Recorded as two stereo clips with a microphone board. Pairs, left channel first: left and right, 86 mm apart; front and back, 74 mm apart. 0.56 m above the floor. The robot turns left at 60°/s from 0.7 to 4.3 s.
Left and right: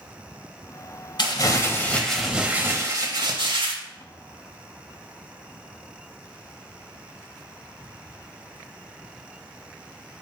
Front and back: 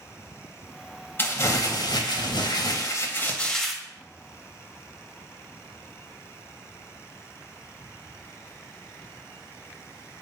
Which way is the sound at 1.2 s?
60° left.